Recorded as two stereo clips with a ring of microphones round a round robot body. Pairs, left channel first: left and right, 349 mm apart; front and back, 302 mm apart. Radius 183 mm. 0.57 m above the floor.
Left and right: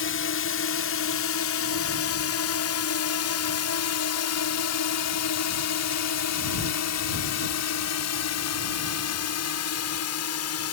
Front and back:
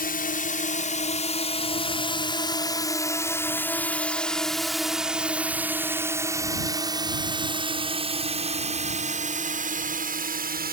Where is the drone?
50° left; by 10.7 s 125° left.